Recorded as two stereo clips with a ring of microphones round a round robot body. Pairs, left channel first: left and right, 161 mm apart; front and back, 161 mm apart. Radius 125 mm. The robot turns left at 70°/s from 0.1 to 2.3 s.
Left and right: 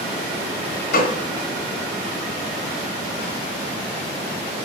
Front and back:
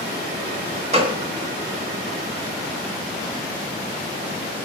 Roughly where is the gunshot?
Behind left.